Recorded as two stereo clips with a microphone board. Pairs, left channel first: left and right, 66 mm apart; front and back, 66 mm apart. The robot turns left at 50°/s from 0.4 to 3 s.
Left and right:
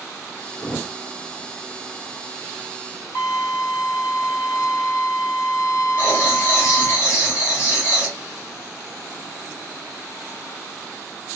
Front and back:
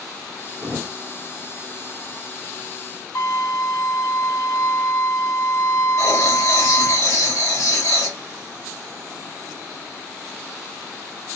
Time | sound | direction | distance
0.6 | a thud | 145° left | 1.1 m
3.1 | a violin | 45° left | 1.5 m
6.0 | writing | 40° left | 3 m